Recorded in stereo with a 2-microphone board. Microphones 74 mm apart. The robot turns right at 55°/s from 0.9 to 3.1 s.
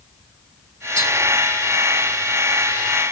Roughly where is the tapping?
Right.